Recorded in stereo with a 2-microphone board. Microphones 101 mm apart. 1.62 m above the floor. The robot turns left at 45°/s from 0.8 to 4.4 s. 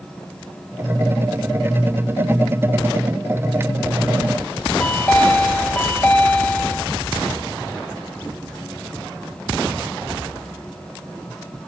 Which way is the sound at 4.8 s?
15° left (ahead or behind).